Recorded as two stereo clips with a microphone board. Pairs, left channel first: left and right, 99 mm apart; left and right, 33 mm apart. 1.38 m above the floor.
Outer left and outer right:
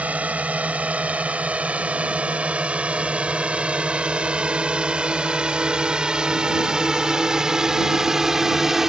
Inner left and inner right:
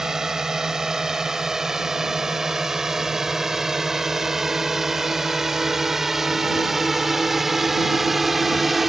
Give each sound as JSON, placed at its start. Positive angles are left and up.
{"t": 0.0, "sound": "a drone", "side_deg": -15}